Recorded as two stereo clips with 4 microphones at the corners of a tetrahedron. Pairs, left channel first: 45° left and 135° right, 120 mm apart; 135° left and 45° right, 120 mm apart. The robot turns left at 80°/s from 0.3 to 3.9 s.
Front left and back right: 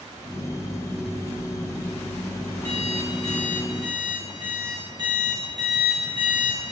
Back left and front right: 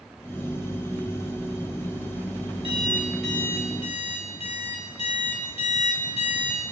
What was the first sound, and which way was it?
An alarm clock, 85° right.